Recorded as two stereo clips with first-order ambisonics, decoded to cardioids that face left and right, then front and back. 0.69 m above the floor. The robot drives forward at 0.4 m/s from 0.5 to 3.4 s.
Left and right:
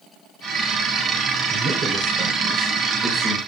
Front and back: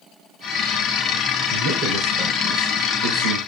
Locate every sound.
1.5 s a man speaking: 150° right, 3.5 m; by 3.4 s 155° right, 4 m